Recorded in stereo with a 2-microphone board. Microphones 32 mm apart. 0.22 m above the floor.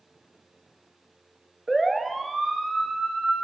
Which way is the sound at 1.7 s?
5° left (ahead or behind).